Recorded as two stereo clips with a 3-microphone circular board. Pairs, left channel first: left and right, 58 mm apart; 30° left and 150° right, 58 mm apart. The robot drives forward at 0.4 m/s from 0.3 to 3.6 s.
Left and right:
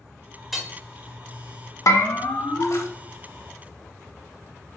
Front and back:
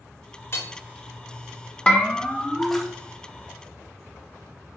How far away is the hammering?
About 1.4 m.